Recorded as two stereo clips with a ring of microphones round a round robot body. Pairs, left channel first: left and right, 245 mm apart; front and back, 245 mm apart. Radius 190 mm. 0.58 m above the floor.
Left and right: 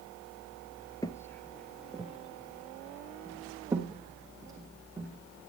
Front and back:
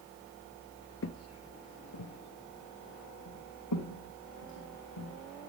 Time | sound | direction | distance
1.0 | footsteps | 20° left | 0.8 m